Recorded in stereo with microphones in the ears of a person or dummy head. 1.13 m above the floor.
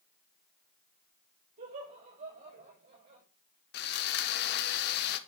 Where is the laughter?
40° right (ahead or behind), 5 m.